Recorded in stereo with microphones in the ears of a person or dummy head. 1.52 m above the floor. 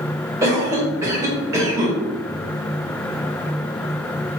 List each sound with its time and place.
0.4 s a cough: 15° right (ahead or behind), 2.0 m